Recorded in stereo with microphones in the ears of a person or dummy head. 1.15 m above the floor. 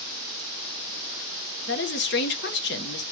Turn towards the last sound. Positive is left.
turn(degrees=55)  # may be behind; listen again after turning